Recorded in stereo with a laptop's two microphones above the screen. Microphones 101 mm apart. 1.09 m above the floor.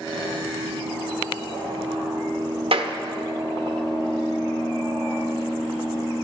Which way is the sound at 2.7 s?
65° right (ahead or behind).